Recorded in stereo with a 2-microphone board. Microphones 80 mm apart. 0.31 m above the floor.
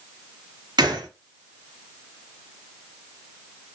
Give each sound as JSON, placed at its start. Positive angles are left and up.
{"t": 0.8, "sound": "a gunshot", "side_deg": -65, "distance_m": 1.0}